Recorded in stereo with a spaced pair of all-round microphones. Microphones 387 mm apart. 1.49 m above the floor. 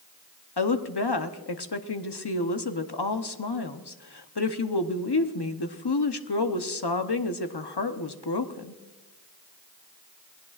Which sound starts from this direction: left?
A woman speaking, at 0.6 s.